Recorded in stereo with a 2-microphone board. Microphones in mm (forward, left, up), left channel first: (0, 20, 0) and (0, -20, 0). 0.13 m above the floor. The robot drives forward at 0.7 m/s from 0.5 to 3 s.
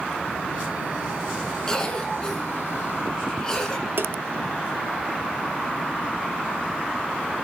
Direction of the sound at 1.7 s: 15° left (ahead or behind).